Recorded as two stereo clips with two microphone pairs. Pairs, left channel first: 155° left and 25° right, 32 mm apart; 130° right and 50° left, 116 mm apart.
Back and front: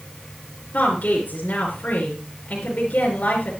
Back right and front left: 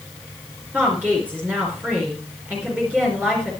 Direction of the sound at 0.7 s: 125° left.